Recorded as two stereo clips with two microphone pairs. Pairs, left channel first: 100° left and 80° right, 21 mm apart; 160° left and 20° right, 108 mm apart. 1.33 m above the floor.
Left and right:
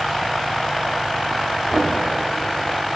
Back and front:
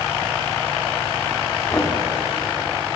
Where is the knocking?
135° right, 2.5 m.